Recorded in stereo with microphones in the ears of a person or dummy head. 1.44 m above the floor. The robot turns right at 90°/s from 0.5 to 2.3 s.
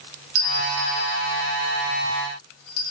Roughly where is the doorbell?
Right.